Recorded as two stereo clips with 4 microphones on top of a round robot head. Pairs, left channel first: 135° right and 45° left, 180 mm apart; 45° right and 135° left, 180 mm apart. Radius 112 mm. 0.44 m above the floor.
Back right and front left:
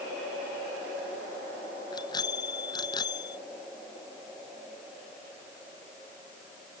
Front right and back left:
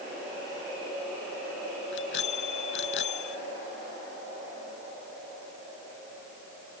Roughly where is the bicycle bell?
Ahead right.